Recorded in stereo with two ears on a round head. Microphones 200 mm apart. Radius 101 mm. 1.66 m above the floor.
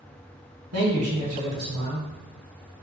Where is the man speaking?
75° right (ahead or behind), 1.3 m.